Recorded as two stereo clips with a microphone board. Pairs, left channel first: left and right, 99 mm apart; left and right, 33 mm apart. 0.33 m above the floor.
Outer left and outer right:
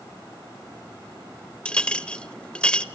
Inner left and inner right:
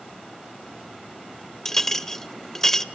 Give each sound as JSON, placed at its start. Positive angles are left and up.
{"t": 1.6, "sound": "a clink", "side_deg": 10, "distance_m": 0.6}